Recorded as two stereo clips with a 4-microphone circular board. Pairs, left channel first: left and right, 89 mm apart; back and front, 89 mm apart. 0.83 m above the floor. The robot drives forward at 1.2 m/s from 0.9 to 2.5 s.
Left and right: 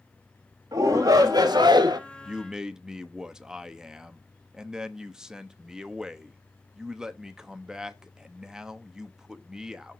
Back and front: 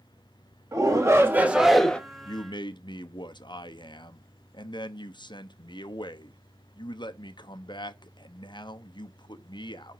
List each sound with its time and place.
0.7 s a shout: 45° right, 1.7 m; by 2.0 s 105° right, 1.3 m
2.2 s a man speaking: 165° right, 0.6 m; by 10.0 s 170° right, 0.8 m